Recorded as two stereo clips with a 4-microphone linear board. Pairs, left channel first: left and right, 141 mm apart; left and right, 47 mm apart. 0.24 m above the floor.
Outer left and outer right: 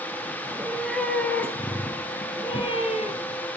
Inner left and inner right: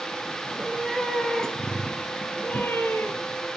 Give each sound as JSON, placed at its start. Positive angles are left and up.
{"t": 0.5, "sound": "a cat meowing", "side_deg": -5, "distance_m": 3.0}